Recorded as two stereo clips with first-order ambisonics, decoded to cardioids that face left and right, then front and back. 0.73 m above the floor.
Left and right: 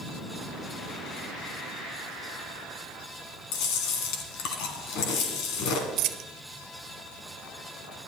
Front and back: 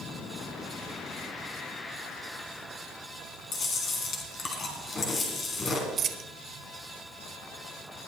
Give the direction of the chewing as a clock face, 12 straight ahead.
10 o'clock.